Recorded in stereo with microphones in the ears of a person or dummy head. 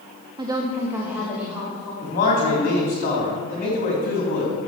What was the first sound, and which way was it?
A woman speaking, 20° right (ahead or behind).